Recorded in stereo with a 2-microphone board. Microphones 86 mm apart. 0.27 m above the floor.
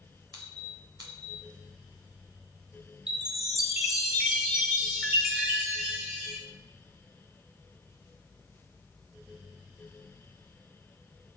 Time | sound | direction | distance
0.3 | a squeak | 50° right (ahead or behind) | 3 m
3.1 | a chime | 10° right (ahead or behind) | 1.2 m